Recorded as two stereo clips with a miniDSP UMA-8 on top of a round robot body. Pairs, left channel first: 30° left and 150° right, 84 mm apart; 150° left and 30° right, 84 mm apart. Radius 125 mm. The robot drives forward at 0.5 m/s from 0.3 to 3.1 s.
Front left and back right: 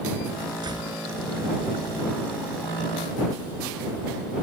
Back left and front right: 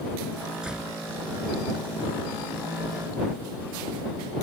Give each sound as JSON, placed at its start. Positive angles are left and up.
{"t": 0.6, "sound": "a door slam", "azimuth_deg": -110}